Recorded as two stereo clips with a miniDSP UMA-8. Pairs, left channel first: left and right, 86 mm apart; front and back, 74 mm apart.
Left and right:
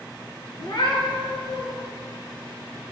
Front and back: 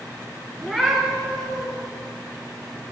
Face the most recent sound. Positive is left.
turn(degrees=100)